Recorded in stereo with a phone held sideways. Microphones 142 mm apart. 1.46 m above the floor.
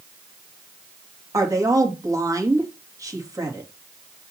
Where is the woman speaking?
20° right (ahead or behind), 2 m.